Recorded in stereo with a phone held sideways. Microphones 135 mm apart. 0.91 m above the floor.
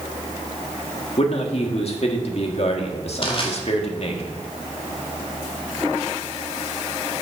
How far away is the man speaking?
About 1.7 m.